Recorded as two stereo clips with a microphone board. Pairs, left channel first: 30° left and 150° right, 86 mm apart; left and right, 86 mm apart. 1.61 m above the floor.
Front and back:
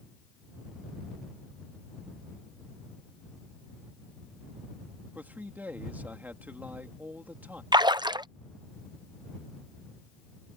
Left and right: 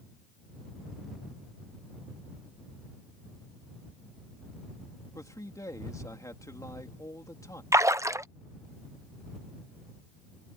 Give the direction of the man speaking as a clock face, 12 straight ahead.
7 o'clock.